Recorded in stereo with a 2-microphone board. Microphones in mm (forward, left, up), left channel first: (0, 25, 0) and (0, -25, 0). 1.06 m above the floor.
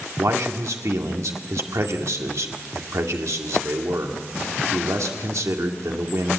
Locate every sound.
0.2 s a man speaking: 85° right, 2 m